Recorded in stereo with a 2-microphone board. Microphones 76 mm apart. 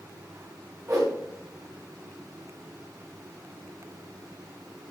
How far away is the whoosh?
About 4 m.